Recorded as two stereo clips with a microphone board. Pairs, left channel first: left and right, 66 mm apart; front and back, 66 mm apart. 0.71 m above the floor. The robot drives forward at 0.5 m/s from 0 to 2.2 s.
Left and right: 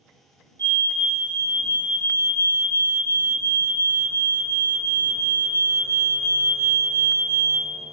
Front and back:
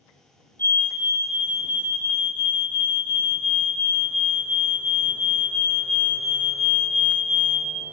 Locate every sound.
0.6 s a fire alarm: 50° left, 3 m; by 7.7 s 65° left, 2.5 m